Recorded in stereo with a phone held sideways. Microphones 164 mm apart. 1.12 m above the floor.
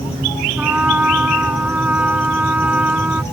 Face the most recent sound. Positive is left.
turn(degrees=-10)  # may be behind; listen again after turning